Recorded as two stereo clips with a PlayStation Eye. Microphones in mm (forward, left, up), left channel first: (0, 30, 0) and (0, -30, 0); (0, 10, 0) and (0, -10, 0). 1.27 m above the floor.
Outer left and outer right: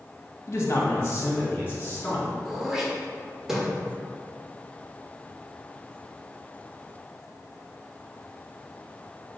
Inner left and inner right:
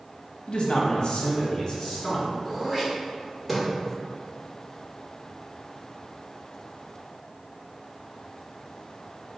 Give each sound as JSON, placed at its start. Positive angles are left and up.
{"t": 0.5, "sound": "a man speaking", "side_deg": 50, "distance_m": 1.3}
{"t": 2.5, "sound": "throat clearing", "side_deg": -5, "distance_m": 1.2}